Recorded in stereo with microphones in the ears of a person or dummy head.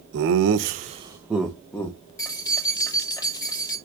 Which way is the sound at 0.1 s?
70° right (ahead or behind).